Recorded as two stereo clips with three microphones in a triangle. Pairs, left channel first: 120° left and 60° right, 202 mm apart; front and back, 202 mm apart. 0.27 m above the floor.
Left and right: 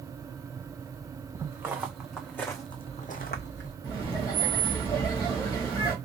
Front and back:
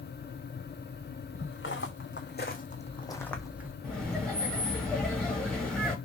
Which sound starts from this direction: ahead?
Footsteps, at 1.4 s.